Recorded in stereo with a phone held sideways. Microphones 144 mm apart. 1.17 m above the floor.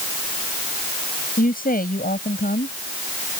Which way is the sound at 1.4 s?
90° left.